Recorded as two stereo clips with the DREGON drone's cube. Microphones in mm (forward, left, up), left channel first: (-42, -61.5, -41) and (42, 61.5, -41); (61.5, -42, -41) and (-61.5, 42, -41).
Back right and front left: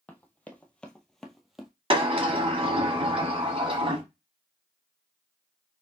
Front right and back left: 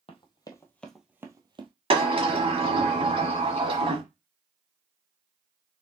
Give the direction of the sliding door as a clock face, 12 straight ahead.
9 o'clock.